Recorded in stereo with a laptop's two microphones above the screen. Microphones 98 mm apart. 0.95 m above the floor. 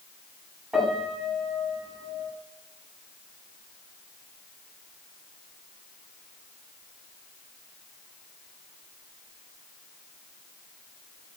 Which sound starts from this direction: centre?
A piano, at 0.7 s.